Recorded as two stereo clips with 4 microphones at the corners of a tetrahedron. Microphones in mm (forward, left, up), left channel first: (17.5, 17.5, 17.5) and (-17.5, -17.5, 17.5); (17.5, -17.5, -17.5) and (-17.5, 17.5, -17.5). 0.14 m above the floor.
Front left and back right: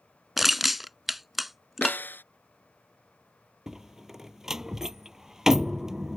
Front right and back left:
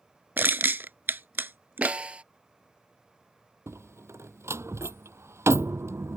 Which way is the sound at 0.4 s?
140° left.